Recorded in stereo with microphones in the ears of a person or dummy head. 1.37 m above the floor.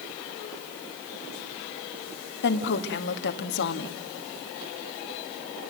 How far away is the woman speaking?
About 1.7 m.